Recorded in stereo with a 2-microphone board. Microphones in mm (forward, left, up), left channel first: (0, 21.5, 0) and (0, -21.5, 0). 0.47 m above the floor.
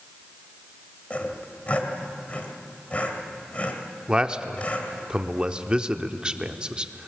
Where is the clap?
I don't hear a clap.